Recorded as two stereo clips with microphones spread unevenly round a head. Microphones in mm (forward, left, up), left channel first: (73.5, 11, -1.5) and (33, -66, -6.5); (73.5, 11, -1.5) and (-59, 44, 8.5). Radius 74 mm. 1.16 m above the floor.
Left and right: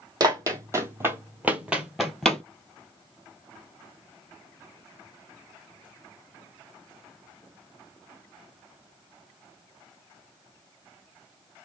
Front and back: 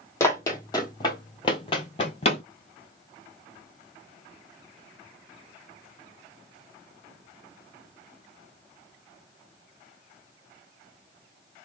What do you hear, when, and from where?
0.2 s running footsteps: 85° right, 1.7 m; by 2.4 s 10° right, 1.4 m